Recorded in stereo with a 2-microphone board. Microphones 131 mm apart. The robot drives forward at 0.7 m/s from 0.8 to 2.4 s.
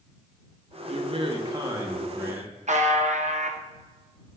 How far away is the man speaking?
About 0.6 m.